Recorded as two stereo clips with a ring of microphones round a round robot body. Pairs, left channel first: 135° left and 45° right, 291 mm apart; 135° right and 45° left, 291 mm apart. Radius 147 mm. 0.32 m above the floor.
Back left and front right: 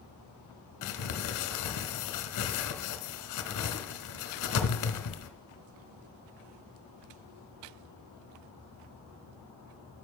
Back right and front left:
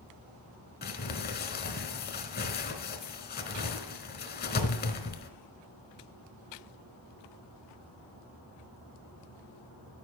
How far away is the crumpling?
About 1.1 m.